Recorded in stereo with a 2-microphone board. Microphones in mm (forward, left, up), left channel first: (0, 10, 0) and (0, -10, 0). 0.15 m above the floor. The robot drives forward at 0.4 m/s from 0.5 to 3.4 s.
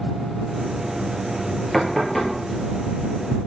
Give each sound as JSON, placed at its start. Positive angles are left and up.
{"t": 1.7, "sound": "knocking", "side_deg": 15, "distance_m": 2.5}